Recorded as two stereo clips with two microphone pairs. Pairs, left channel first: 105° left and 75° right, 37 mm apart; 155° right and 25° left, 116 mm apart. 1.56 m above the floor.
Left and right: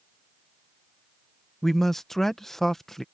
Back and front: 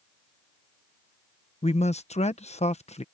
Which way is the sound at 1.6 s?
175° right.